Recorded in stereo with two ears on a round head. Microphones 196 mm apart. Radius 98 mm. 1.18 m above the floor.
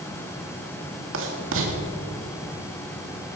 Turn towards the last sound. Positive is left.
turn(degrees=-60)  # may be behind; listen again after turning